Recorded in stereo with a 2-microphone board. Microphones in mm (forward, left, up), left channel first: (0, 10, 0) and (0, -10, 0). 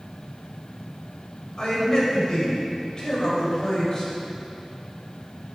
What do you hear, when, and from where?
1.6 s a man speaking: 40° left (ahead or behind), 1.8 m